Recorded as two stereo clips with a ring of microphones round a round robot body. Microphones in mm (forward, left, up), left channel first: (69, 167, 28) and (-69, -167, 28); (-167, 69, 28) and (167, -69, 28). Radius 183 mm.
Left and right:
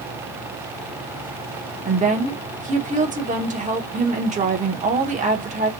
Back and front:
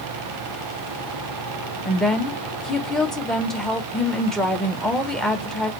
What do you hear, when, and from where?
1.9 s a woman speaking: 115° right, 0.7 m